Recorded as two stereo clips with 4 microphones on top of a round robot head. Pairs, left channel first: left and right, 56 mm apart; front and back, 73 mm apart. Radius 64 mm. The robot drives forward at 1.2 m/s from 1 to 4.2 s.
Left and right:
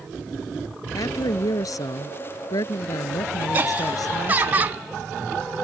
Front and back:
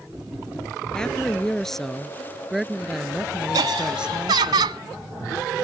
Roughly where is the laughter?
Behind right.